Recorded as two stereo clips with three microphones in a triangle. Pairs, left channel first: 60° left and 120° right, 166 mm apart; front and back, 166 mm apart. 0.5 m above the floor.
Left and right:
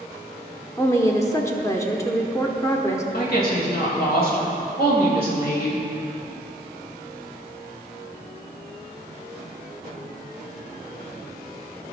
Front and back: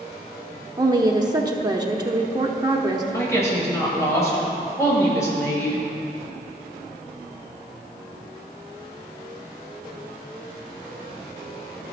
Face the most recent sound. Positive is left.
turn(degrees=75)